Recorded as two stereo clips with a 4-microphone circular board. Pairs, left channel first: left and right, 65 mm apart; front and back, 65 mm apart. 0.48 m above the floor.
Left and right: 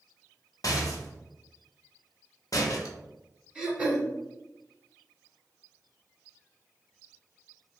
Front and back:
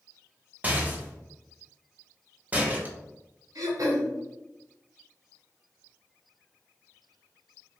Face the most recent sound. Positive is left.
turn(degrees=-170)